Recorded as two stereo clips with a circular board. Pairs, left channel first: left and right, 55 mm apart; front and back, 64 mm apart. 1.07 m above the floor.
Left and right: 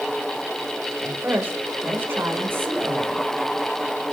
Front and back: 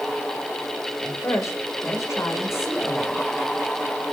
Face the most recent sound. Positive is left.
turn(degrees=-45)